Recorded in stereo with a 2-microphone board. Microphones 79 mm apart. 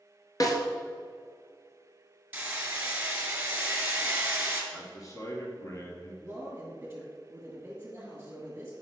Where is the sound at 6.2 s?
15° right (ahead or behind), 1.9 m.